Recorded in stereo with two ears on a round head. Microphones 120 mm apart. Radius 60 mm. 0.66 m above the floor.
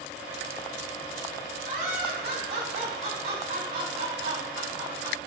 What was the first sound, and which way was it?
Laughter, 60° right (ahead or behind).